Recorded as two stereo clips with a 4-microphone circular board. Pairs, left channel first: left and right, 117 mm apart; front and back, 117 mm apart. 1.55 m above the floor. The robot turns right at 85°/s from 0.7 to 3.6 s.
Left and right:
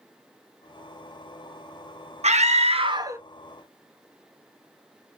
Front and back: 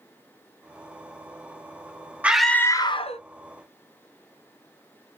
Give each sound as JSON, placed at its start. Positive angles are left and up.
{"t": 2.2, "sound": "a scream", "azimuth_deg": -105, "distance_m": 0.7}